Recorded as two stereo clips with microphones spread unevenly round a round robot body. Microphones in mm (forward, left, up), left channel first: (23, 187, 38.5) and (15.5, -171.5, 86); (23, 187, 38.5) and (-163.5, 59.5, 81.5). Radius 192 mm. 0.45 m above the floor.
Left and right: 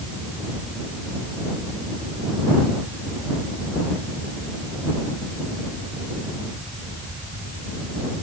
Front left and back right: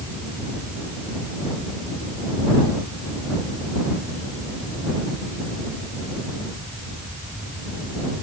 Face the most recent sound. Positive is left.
No sound to turn to.